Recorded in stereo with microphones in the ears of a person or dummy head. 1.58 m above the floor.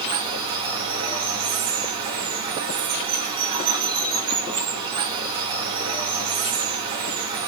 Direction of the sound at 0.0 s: 25° right (ahead or behind).